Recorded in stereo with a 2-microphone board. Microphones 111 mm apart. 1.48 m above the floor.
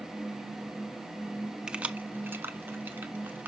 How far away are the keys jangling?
About 0.7 m.